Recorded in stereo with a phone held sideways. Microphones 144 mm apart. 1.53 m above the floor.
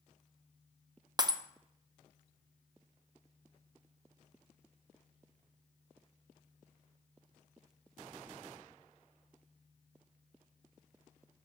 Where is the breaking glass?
30° right (ahead or behind), 0.6 m.